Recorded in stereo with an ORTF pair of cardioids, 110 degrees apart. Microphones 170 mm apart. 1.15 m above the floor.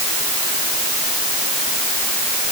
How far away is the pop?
No pop in this recording.